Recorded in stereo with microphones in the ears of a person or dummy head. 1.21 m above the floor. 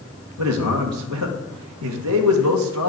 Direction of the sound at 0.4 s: 70° right (ahead or behind).